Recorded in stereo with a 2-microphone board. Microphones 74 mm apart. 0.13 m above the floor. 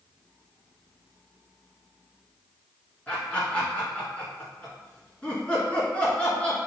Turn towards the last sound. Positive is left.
turn(degrees=20)  # may be behind; listen again after turning